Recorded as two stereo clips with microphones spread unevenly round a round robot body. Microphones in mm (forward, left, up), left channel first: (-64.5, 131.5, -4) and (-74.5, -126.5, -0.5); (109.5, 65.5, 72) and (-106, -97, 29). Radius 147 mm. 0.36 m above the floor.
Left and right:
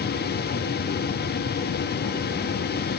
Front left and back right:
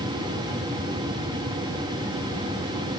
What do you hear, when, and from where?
Only background noise.